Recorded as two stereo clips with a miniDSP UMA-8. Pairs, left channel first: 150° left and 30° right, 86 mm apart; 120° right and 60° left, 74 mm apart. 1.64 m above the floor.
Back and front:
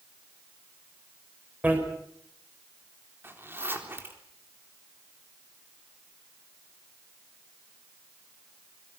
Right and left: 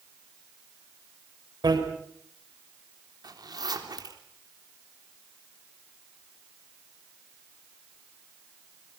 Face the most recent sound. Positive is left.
turn(degrees=35)